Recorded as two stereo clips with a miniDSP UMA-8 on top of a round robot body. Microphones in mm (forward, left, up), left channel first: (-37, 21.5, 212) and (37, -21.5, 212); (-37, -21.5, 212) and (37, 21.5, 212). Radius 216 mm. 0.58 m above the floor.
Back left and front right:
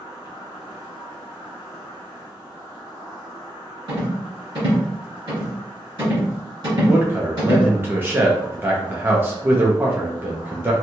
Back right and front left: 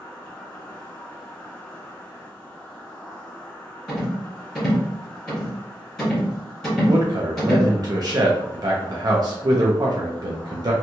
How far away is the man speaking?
About 0.8 m.